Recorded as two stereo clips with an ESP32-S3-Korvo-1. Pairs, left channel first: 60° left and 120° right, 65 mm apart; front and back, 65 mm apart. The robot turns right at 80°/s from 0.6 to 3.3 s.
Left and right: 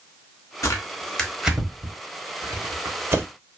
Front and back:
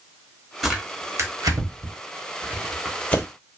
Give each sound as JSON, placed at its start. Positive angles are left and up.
{"t": 0.6, "sound": "tearing paper", "azimuth_deg": 95, "distance_m": 0.8}